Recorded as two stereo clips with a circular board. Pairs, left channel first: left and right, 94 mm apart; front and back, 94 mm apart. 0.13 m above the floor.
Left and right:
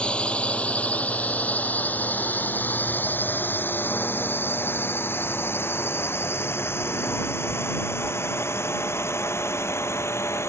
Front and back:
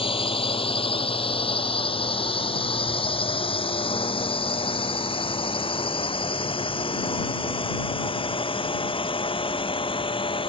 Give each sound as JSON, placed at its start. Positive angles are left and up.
{"t": 0.0, "sound": "a drone", "azimuth_deg": 10}